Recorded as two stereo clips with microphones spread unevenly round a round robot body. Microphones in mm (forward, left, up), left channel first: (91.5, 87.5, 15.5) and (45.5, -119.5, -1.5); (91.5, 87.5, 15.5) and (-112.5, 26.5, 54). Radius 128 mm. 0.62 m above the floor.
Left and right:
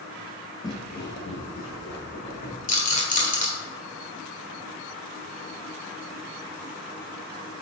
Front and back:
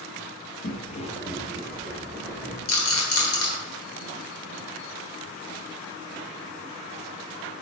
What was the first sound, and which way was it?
Footsteps, 30° left.